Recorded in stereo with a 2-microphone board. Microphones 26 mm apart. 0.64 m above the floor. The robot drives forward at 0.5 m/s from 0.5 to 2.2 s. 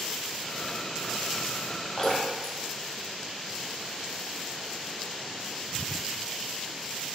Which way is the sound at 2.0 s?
15° left (ahead or behind).